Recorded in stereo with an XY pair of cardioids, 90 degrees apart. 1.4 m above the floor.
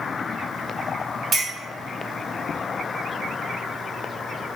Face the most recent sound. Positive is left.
turn(degrees=-60)